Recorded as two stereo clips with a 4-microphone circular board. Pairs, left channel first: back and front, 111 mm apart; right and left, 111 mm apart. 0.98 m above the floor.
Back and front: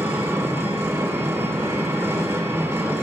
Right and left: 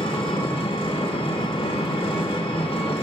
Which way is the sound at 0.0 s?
65° right.